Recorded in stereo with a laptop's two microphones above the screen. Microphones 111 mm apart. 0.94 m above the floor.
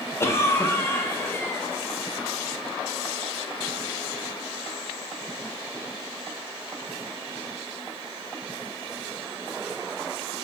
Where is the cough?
25° left (ahead or behind), 0.6 m.